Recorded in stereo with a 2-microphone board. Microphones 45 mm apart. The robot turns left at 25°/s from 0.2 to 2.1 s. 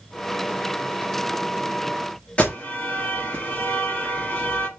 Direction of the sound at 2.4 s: 25° left (ahead or behind).